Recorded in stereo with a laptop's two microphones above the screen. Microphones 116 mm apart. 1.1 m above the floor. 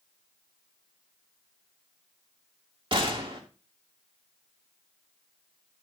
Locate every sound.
2.9 s a gunshot: 45° right (ahead or behind), 2 m